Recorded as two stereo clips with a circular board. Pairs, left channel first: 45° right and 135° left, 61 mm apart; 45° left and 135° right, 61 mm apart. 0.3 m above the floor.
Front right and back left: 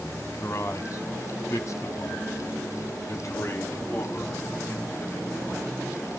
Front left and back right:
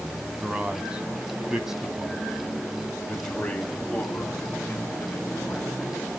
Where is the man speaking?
70° right, 3 m; by 5.7 s 5° right, 3 m.